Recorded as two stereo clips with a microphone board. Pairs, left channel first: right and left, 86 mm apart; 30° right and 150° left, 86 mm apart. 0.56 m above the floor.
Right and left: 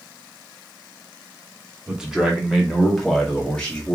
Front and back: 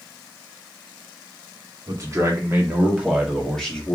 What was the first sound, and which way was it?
A man speaking, 165° left.